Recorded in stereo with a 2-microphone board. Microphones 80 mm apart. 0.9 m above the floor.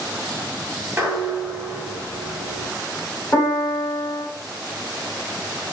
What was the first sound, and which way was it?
Dishes clattering, 30° right (ahead or behind).